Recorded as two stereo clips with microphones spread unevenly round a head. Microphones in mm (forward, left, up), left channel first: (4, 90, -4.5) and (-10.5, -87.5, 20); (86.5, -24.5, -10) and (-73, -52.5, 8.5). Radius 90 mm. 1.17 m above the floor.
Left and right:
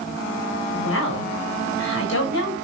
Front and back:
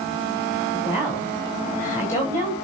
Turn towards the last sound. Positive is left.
turn(degrees=85)